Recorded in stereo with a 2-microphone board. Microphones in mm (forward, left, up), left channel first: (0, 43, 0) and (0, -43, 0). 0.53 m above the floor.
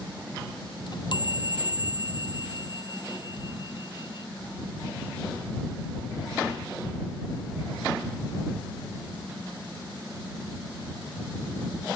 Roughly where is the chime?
Left.